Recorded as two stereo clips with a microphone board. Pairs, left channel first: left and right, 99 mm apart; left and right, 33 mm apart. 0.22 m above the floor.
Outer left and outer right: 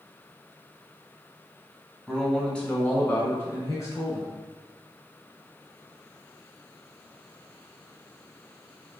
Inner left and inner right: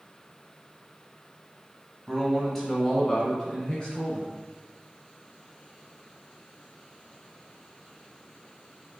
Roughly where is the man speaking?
Centre.